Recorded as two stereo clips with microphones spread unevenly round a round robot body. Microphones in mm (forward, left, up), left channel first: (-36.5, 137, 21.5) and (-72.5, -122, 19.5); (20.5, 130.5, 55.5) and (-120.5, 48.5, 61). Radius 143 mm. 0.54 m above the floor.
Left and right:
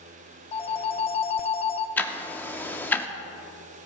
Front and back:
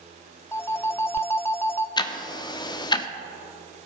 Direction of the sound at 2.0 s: 5° left.